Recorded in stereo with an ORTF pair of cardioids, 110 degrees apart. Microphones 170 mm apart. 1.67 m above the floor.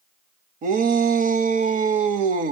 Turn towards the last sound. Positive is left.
turn(degrees=-55)